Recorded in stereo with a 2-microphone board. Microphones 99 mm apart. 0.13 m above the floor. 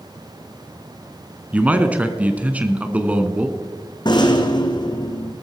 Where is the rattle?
45° left (ahead or behind), 1.8 m.